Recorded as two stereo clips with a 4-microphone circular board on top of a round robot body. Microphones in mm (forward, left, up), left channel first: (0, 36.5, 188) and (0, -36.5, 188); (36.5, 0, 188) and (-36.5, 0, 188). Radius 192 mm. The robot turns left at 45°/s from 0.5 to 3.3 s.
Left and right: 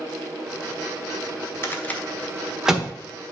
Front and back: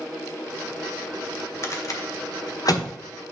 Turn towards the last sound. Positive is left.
turn(degrees=-35)